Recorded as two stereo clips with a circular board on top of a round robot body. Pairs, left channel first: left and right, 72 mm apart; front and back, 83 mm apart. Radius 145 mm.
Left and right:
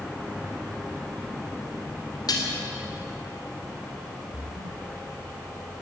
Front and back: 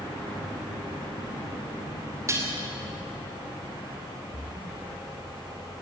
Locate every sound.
2.3 s dishes clattering: 125° left, 2.5 m
4.3 s a splash: 75° right, 3 m